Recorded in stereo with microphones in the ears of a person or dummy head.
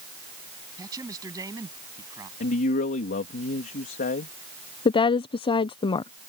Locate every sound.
0.8 s a man speaking: 20° right (ahead or behind)
2.4 s a man speaking: 45° left (ahead or behind)
4.8 s a woman speaking: 25° left (ahead or behind)